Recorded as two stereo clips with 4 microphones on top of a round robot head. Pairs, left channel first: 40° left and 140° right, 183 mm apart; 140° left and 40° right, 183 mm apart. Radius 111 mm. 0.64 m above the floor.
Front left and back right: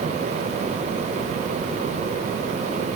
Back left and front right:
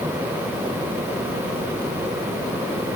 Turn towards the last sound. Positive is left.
No sound to turn to.